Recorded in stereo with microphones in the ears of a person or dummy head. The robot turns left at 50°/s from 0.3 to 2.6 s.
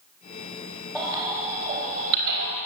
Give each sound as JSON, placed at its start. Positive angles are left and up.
{"t": 0.9, "sound": "a baby crying", "side_deg": 5, "distance_m": 4.0}